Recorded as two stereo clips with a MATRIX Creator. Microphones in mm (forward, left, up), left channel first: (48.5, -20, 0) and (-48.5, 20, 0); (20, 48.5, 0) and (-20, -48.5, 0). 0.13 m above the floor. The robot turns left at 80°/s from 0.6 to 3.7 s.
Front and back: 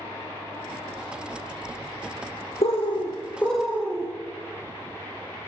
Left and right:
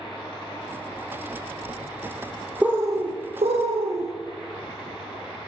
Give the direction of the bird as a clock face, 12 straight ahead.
1 o'clock.